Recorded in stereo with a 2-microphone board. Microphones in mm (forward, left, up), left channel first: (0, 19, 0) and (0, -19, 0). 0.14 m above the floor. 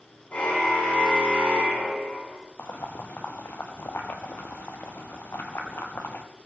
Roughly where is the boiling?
Left.